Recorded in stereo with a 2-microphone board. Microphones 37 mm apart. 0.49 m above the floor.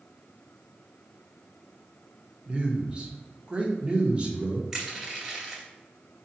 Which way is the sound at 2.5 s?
25° right (ahead or behind).